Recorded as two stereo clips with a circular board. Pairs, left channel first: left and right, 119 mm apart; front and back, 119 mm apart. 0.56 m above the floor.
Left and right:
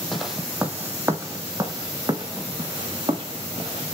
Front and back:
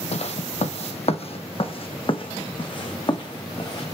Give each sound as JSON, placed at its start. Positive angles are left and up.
{"t": 0.1, "sound": "footsteps", "azimuth_deg": 0, "distance_m": 1.1}